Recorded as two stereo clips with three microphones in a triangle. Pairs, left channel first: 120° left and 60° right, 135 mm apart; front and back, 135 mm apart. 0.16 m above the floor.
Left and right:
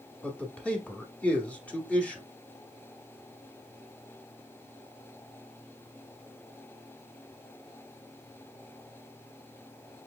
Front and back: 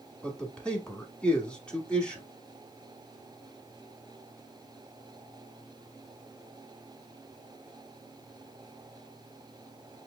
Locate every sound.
0.2 s a man speaking: 65° left, 1.1 m